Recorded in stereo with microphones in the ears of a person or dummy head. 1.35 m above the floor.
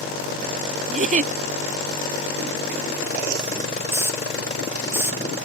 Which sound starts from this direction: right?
A giggle, at 0.9 s.